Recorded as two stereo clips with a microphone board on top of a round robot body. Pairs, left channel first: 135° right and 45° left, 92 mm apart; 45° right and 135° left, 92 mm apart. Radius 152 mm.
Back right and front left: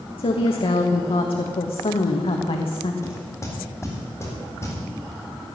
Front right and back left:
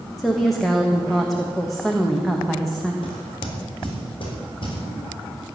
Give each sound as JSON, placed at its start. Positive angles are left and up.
{"t": 0.2, "sound": "a woman speaking", "azimuth_deg": -135, "distance_m": 1.3}
{"t": 3.0, "sound": "knocking", "azimuth_deg": -75, "distance_m": 4.0}